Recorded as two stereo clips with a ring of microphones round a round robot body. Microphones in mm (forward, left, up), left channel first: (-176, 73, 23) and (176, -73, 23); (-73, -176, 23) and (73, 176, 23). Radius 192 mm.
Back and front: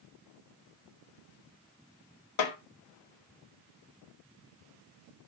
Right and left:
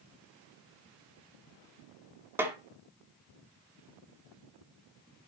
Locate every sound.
2.4 s a snare drum: 150° left, 1.9 m